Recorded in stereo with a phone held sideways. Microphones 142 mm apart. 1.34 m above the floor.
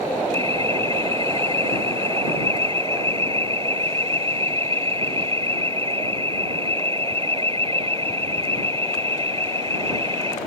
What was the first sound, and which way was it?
An alarm, 40° right (ahead or behind).